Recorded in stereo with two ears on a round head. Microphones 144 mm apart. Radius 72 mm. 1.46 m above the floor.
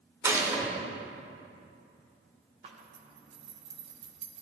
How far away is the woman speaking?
I don't hear a woman speaking.